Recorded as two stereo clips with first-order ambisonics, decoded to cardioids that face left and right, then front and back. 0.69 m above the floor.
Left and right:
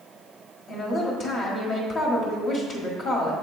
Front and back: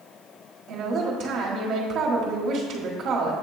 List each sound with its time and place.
0.7 s a woman speaking: 140° left, 1.4 m